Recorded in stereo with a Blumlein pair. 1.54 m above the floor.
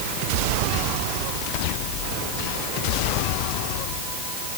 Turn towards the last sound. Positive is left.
No sound to turn to.